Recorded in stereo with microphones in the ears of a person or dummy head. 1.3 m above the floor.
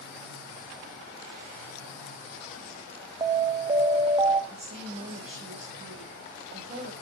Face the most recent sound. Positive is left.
turn(degrees=-30)  # may be behind; listen again after turning